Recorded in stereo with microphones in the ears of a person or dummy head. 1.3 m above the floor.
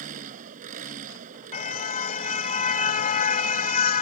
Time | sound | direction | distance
0.0 | an engine running | 45° right (ahead or behind) | ?
1.5 | a car horn | 45° left (ahead or behind) | ?